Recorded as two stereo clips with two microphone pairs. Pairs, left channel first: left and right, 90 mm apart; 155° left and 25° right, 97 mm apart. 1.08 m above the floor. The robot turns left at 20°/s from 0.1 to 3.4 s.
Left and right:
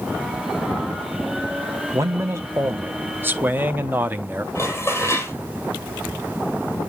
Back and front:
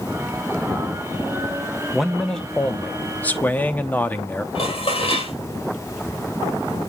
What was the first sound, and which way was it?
A man speaking, 115° right.